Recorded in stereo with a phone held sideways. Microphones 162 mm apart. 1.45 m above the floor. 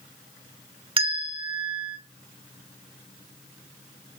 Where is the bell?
35° right (ahead or behind), 1.2 m.